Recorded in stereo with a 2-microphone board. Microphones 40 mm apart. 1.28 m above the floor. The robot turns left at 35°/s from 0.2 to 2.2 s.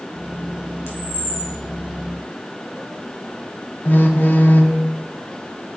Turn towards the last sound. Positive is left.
turn(degrees=55)  # may be behind; listen again after turning